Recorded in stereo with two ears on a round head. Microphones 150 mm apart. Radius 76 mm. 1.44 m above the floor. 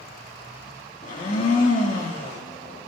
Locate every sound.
1.0 s a blender: 45° left (ahead or behind), 2.5 m